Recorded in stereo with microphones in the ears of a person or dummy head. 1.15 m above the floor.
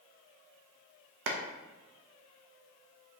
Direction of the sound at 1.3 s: 60° right (ahead or behind).